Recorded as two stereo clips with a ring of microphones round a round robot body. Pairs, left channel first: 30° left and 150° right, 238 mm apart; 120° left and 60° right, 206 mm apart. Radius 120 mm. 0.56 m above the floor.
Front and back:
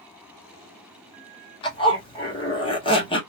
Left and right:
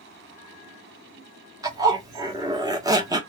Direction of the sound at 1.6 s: 10° right.